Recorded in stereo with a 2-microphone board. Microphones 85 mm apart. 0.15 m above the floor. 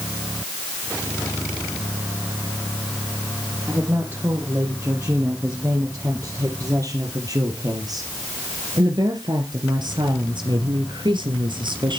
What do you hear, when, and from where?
3.7 s a woman speaking: 30° right (ahead or behind), 5 m; by 12.0 s 65° right (ahead or behind), 2.5 m